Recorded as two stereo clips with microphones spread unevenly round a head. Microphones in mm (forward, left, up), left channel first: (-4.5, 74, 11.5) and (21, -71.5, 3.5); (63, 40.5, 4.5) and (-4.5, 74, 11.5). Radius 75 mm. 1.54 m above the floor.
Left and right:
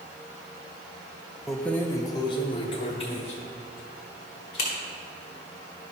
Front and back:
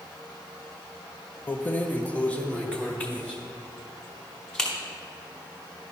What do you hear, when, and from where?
1.5 s keys jangling: 10° left, 0.6 m; by 4.7 s 55° left, 2.5 m